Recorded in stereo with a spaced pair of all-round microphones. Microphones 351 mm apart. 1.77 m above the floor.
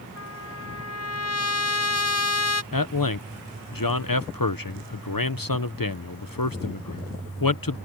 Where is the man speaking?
70° left (ahead or behind).